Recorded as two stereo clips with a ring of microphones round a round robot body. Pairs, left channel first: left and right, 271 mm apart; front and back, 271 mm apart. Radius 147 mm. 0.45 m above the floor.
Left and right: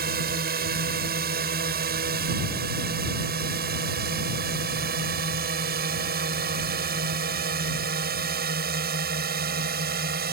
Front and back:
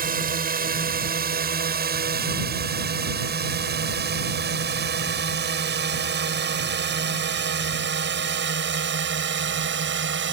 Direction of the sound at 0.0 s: 135° right.